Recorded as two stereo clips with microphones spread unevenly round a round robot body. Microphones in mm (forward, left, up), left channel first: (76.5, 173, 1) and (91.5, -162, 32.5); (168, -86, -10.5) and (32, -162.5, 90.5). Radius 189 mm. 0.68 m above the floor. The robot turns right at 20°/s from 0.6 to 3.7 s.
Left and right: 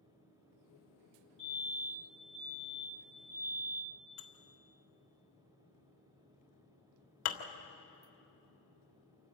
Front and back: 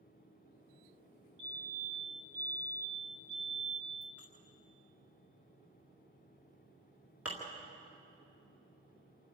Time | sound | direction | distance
1.4 | a fire alarm | 165° left | 6.5 m
4.2 | dishes clattering | 120° left | 1.7 m